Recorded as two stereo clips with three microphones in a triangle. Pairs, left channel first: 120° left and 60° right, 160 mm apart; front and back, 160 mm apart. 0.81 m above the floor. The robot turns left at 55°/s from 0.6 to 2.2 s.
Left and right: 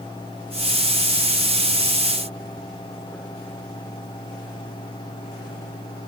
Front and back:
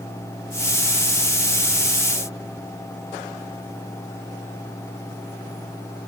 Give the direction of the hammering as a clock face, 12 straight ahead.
No hammering in this recording.